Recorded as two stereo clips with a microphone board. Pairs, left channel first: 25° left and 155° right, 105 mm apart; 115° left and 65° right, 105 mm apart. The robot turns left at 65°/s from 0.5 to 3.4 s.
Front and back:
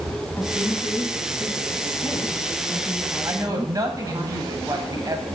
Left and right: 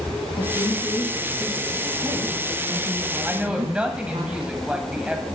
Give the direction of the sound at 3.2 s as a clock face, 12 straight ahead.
4 o'clock.